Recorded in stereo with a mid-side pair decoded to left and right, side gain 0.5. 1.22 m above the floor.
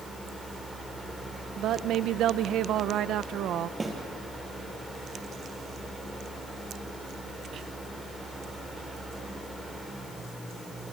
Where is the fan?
10° right, 6.5 m.